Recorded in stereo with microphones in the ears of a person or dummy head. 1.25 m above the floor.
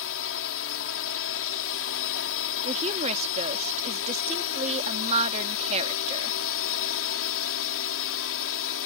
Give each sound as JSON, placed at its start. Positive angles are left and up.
{"t": 0.0, "sound": "a drone", "side_deg": 70}
{"t": 2.6, "sound": "a woman speaking", "side_deg": -40}